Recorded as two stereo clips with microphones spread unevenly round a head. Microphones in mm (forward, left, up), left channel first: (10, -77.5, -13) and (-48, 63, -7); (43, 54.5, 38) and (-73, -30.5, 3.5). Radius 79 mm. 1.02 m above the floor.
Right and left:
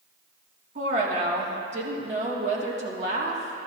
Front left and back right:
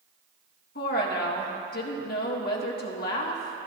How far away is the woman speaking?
About 1.8 m.